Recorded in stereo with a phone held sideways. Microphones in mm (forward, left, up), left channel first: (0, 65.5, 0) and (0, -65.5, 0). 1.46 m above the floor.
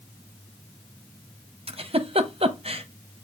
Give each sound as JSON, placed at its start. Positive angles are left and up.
{"t": 1.7, "sound": "a giggle", "side_deg": -50, "distance_m": 0.7}